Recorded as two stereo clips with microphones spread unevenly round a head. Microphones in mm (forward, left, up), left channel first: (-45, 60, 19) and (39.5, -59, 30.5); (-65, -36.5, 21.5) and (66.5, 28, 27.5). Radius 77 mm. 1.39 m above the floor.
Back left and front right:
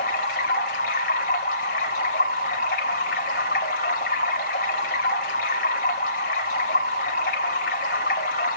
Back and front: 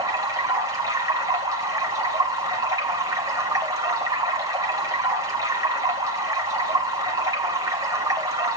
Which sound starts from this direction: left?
Running water, at 0.0 s.